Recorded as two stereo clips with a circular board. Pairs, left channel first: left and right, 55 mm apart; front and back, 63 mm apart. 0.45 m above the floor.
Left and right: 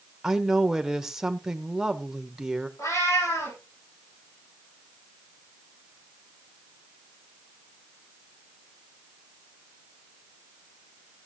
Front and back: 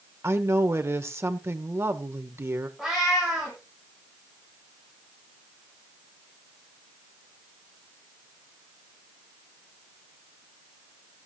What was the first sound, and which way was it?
A woman speaking, 165° right.